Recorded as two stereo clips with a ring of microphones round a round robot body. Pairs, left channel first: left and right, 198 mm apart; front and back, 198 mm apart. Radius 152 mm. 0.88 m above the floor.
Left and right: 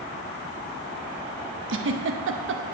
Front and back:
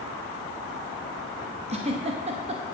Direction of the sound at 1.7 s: 115° right.